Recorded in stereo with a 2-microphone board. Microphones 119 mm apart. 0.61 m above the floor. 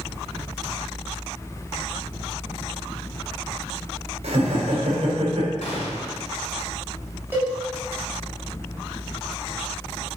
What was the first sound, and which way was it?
Laughter, 65° right (ahead or behind).